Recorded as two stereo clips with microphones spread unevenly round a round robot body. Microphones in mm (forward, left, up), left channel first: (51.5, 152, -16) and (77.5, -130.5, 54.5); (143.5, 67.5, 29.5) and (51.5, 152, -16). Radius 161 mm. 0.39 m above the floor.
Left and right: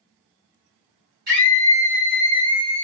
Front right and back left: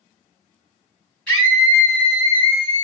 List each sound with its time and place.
1.3 s a scream: 145° right, 1.8 m; by 2.8 s 160° left, 1.5 m